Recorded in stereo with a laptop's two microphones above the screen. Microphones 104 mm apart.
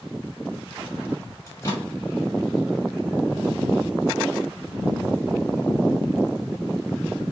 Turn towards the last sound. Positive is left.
turn(degrees=30)  # may be behind; listen again after turning